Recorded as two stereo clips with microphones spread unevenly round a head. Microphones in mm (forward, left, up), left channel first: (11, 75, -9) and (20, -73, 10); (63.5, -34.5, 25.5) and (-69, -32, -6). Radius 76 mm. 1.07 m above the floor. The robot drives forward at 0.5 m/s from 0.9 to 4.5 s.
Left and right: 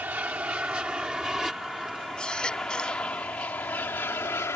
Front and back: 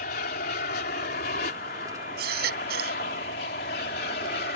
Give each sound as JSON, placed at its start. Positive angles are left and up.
{"t": 0.0, "sound": "an aircraft", "azimuth_deg": -5}
{"t": 2.2, "sound": "a baby crying", "azimuth_deg": 180}